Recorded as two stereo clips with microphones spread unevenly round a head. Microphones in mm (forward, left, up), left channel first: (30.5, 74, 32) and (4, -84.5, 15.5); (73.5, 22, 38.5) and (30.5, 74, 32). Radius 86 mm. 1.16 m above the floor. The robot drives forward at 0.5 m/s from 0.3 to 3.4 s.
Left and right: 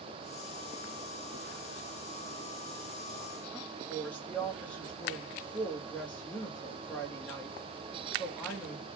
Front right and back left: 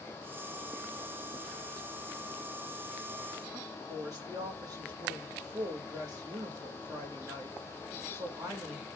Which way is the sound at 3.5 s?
165° left.